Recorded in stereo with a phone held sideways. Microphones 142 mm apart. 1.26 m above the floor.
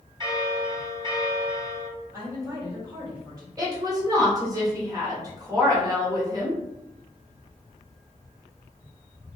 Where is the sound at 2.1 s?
25° right (ahead or behind), 1.4 m.